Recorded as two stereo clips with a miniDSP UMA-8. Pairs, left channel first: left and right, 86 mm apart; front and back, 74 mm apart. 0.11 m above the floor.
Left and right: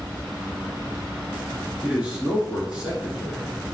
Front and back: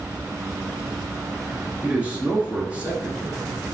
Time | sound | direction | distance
1.8 | a man speaking | 145° right | 1.1 m